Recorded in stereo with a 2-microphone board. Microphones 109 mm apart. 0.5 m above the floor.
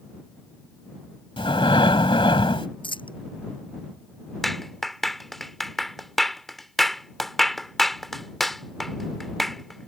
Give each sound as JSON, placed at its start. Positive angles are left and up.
{"t": 1.4, "sound": "breathing", "side_deg": 55}
{"t": 2.8, "sound": "a dropped coin", "side_deg": 50}
{"t": 4.4, "sound": "a clap", "side_deg": 0}